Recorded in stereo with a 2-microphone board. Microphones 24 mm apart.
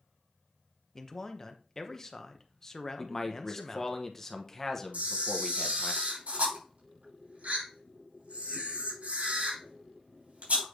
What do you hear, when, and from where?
0.9 s a man speaking: 15° left (ahead or behind), 0.8 m
3.0 s a man speaking: 15° left (ahead or behind), 0.9 m
4.9 s a camera shutter: 85° right, 4.5 m